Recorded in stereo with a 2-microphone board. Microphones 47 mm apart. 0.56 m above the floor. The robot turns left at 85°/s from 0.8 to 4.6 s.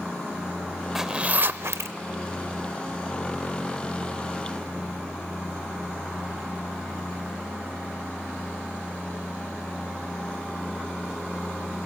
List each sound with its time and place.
0.9 s a zipper: 10° right (ahead or behind), 0.5 m; by 2.0 s 80° right, 0.5 m